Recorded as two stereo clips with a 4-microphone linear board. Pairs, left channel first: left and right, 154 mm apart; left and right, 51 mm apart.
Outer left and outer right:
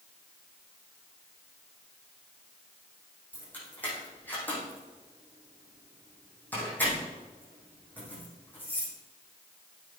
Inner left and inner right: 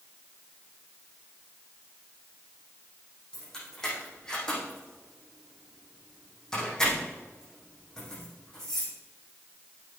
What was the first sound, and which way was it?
Keys jangling, 10° left (ahead or behind).